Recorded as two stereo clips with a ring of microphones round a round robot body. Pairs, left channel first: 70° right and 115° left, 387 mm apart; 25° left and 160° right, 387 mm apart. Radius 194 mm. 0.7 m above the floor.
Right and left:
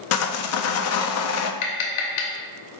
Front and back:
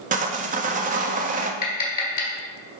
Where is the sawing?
95° right, 0.5 m.